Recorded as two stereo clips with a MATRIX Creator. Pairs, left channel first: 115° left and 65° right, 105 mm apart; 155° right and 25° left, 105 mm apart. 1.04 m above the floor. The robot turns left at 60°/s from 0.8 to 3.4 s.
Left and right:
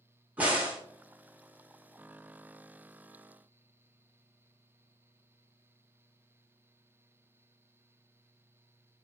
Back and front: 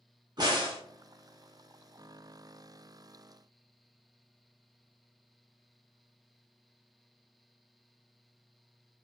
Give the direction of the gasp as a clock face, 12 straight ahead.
I don't hear a gasp.